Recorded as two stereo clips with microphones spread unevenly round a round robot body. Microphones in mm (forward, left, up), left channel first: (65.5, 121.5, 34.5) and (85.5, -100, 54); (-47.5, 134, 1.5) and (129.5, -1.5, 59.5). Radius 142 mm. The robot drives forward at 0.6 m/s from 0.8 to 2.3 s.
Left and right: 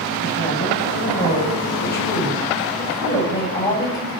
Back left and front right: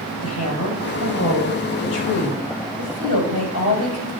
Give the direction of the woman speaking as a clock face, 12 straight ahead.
7 o'clock.